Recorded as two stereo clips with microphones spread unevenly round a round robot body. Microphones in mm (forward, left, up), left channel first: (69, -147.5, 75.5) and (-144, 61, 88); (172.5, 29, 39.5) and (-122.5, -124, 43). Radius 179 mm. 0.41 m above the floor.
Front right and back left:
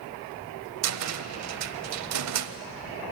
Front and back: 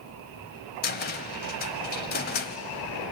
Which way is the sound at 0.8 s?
95° left.